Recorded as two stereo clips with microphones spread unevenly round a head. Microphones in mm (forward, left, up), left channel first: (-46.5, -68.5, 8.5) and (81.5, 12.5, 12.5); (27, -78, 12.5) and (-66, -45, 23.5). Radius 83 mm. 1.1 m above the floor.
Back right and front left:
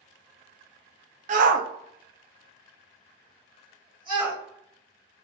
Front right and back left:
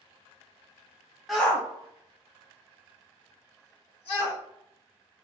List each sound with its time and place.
1.3 s a shout: 70° left, 0.5 m; by 4.4 s 30° right, 1.5 m